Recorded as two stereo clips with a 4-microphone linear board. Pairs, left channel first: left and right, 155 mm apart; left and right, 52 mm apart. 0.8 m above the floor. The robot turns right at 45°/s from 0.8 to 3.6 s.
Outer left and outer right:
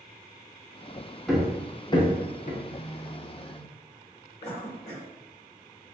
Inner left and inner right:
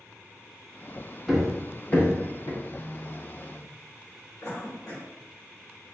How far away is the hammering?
About 0.5 m.